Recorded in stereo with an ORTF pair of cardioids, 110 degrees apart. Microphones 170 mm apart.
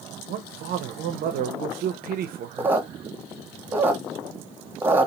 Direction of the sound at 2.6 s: 10° right.